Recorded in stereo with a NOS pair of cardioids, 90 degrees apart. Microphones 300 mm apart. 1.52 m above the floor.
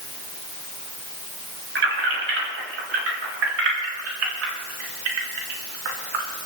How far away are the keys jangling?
About 6 m.